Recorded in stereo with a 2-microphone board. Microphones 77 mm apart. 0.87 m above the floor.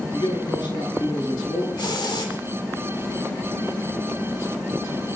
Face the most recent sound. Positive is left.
turn(degrees=75)  # may be behind; listen again after turning